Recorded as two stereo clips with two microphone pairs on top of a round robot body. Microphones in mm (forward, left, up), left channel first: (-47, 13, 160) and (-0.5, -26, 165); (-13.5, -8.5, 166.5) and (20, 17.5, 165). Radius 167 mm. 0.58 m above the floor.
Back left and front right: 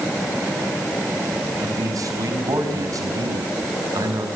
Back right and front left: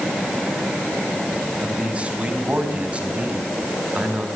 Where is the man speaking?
20° right, 5.5 m.